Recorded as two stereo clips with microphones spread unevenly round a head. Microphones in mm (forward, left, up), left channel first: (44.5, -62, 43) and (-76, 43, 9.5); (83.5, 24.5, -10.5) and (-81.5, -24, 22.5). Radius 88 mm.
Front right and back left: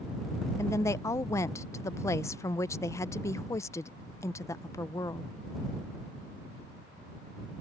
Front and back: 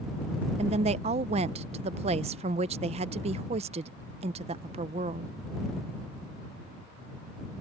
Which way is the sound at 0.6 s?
110° right.